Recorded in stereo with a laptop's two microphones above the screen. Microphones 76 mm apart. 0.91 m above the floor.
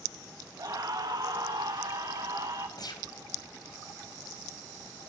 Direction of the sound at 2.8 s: 60° left (ahead or behind).